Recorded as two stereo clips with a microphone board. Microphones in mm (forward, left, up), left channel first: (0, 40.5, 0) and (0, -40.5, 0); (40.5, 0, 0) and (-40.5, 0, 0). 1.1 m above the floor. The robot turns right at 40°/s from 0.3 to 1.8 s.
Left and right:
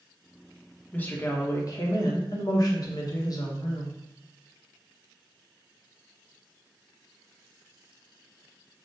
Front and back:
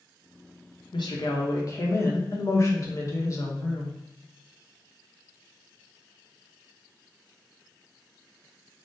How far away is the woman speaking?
About 0.8 m.